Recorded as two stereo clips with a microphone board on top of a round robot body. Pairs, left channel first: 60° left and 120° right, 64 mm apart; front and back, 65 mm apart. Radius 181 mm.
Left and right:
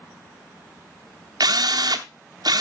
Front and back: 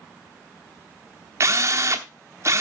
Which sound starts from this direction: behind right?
A drill, at 1.4 s.